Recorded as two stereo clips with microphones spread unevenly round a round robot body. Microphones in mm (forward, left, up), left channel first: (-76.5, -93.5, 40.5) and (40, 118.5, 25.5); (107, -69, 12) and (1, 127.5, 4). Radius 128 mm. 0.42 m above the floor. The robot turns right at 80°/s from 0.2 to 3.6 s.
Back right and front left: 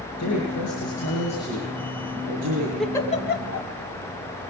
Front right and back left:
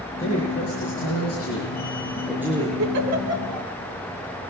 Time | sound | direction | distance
0.2 | a man speaking | 140° right | 7 m
2.8 | a giggle | 150° left | 3 m